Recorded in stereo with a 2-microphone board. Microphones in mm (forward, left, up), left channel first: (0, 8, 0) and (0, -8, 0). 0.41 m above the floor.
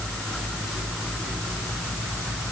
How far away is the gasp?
I don't hear a gasp.